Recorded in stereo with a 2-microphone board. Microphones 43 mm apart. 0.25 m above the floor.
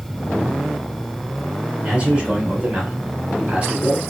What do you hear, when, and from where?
1.8 s a man speaking: 30° right (ahead or behind), 2.5 m